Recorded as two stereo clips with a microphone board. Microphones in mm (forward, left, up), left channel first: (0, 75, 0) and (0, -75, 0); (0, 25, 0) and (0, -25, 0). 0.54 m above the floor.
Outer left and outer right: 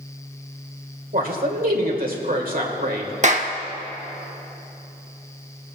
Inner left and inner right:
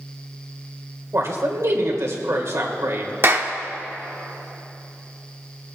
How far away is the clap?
About 0.9 m.